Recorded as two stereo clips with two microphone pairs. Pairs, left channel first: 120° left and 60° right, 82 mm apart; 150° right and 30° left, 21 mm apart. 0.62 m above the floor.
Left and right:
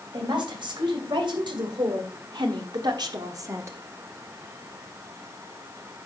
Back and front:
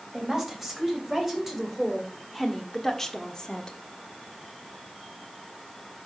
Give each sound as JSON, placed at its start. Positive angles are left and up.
{"t": 0.1, "sound": "a woman speaking", "azimuth_deg": -40, "distance_m": 3.0}